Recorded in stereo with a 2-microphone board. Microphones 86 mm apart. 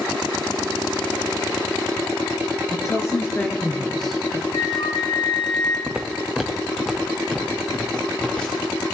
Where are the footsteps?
15° right (ahead or behind), 0.8 m; by 8.7 s 10° left (ahead or behind), 3.5 m.